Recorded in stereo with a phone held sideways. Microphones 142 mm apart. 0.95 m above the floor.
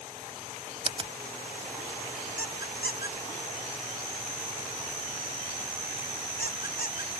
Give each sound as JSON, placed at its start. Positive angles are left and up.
{"t": 0.8, "sound": "a finger snap", "side_deg": -35}
{"t": 2.4, "sound": "a squeak", "side_deg": 80}